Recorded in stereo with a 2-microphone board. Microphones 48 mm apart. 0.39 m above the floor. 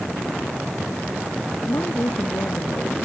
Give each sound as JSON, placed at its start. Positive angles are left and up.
{"t": 1.6, "sound": "a woman speaking", "side_deg": 85}